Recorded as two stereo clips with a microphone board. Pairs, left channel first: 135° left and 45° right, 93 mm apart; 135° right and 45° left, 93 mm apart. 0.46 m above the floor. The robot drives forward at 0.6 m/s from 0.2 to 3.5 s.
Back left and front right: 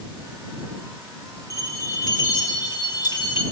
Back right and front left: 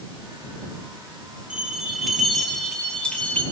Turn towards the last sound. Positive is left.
turn(degrees=155)